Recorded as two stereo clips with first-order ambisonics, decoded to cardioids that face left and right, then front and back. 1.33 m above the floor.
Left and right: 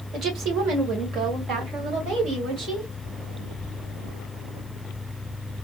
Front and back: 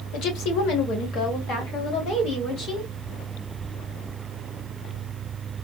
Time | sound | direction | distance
0.1 | a woman speaking | 30° right | 1.0 m